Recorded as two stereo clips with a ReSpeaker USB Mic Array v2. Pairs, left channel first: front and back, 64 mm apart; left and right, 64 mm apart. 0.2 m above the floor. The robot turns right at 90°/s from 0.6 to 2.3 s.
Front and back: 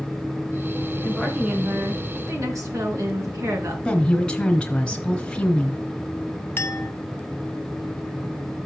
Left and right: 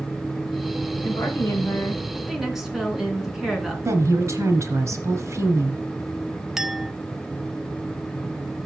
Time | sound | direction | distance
1.0 | a woman speaking | 70° left | 2.5 m
3.9 | a woman speaking | 75° right | 2 m
6.6 | a clink | 10° right | 0.6 m